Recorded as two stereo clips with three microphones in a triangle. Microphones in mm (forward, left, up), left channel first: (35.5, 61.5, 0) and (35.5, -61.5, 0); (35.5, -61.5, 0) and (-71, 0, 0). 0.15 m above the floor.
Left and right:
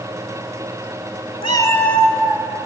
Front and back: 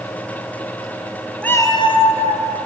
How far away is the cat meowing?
About 0.5 m.